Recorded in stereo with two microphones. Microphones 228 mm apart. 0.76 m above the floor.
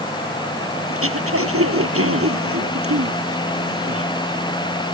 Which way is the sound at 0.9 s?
75° right (ahead or behind).